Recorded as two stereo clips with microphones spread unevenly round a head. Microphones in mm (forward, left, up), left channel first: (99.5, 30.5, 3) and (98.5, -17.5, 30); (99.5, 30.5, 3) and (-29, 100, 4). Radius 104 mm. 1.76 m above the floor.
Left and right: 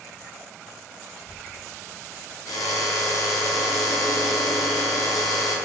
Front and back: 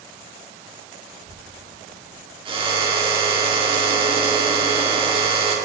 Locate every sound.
1.1 s a child speaking: 155° right, 2.5 m
2.5 s a drill: 100° left, 6 m